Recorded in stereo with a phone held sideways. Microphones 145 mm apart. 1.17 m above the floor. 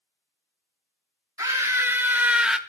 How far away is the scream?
About 3 m.